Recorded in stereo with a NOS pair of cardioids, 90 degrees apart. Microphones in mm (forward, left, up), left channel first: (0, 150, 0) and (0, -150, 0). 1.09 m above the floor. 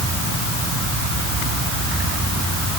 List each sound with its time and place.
Only background noise.